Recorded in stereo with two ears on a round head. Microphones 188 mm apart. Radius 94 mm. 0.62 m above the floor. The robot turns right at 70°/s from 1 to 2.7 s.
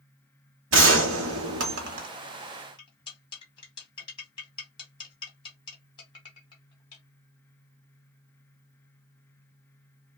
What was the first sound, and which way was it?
A gunshot, 115° right.